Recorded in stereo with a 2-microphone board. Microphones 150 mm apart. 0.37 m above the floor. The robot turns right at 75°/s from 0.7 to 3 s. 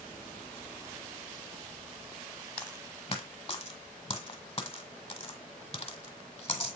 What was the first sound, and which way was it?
A dropped coin, 10° left (ahead or behind).